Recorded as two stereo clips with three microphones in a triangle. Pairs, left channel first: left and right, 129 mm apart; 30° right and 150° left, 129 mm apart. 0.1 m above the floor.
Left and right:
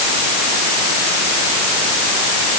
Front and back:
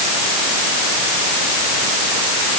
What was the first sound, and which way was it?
Only background noise.